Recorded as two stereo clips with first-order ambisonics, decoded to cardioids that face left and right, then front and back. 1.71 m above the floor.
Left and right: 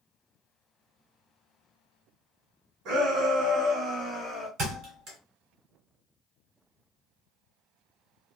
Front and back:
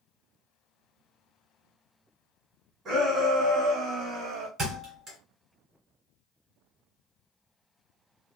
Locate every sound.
2.9 s a shout: 130° right, 1.9 m; by 4.5 s 165° left, 0.7 m
4.6 s a thud: 130° right, 2.5 m